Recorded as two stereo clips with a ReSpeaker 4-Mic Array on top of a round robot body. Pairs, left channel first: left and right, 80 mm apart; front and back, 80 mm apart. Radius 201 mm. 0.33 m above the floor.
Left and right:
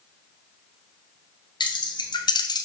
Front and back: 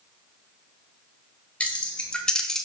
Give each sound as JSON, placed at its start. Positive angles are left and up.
{"t": 1.6, "sound": "keys jangling", "azimuth_deg": 75, "distance_m": 1.9}